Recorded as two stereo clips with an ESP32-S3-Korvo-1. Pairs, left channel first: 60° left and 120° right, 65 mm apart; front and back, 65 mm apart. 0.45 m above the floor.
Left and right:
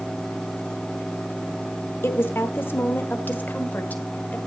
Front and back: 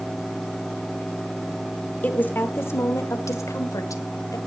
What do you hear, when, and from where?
2.0 s a woman speaking: 50° left, 1.0 m; by 4.4 s 5° right, 1.9 m